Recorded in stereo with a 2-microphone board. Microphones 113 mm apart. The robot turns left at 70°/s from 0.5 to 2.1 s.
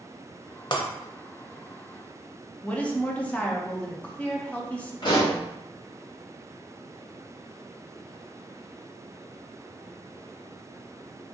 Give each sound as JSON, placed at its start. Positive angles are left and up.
{"t": 0.7, "sound": "breaking glass", "side_deg": 45, "distance_m": 0.6}
{"t": 2.6, "sound": "a woman speaking", "side_deg": 10, "distance_m": 0.6}
{"t": 5.0, "sound": "a pop", "side_deg": 45, "distance_m": 1.5}